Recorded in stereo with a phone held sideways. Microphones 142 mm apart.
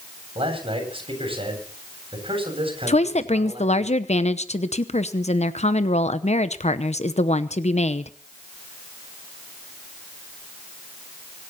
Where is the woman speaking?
50° left (ahead or behind), 0.9 m.